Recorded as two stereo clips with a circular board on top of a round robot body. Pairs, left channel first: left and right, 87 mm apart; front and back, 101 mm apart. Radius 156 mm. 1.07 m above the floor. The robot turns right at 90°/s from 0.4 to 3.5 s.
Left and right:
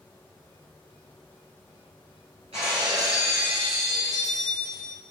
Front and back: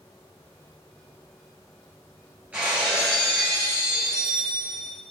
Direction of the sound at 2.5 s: 110° right.